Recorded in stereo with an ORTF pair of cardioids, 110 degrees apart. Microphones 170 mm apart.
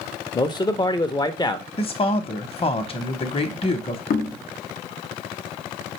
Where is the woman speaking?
35° left, 0.8 m.